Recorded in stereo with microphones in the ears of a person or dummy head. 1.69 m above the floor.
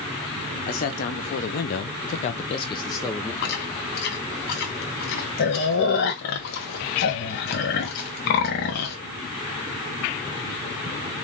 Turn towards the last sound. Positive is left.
turn(degrees=60)  # may be behind; listen again after turning